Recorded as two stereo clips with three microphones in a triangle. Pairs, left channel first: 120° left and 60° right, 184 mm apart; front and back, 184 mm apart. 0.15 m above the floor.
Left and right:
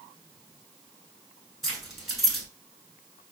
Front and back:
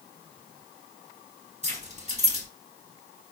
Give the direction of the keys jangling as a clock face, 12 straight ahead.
5 o'clock.